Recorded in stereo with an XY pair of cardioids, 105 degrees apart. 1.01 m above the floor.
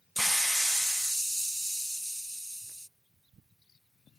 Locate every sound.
0.2 s a hiss: 5° right